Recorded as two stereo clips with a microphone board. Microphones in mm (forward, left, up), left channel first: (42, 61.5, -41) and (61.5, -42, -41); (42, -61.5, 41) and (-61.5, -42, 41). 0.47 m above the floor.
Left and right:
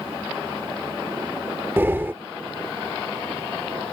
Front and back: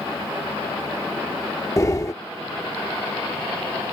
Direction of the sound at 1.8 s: 30° right.